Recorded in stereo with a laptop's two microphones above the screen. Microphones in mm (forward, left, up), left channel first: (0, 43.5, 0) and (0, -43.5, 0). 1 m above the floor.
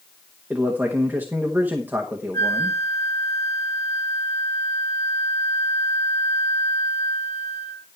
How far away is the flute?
About 1.0 m.